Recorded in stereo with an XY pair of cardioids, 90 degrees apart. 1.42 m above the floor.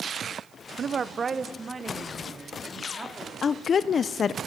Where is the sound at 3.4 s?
55° left, 0.6 m.